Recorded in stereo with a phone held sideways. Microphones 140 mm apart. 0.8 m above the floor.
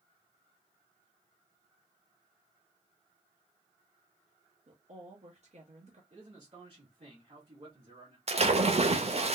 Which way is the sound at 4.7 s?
55° right (ahead or behind).